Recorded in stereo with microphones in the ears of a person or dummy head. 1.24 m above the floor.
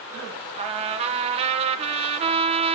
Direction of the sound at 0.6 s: 30° right (ahead or behind).